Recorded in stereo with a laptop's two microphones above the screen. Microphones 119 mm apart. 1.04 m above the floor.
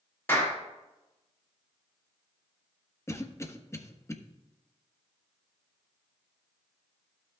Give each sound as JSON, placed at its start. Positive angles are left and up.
{"t": 0.3, "sound": "a clap", "side_deg": 20, "distance_m": 3.0}
{"t": 3.1, "sound": "a cough", "side_deg": 25, "distance_m": 1.3}